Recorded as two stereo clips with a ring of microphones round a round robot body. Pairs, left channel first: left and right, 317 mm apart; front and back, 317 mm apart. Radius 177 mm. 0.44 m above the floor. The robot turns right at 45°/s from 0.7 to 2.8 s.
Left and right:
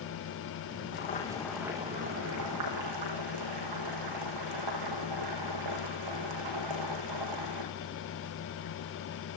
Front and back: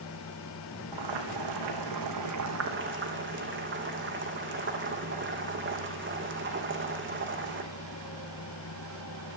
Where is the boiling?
150° left, 4.5 m; by 7.7 s 125° right, 4.5 m.